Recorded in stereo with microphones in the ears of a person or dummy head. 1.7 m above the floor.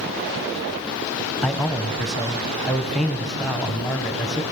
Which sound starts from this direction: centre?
A man speaking, at 1.4 s.